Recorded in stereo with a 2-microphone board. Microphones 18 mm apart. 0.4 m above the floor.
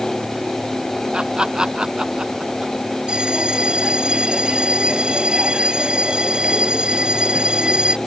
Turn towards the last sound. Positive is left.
turn(degrees=-60)  # may be behind; listen again after turning